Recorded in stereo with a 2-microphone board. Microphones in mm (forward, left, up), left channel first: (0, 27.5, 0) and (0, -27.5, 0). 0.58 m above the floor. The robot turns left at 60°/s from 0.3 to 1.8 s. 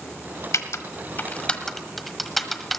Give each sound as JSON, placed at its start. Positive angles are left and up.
{"t": 0.5, "sound": "typing on a keyboard", "side_deg": 75, "distance_m": 1.1}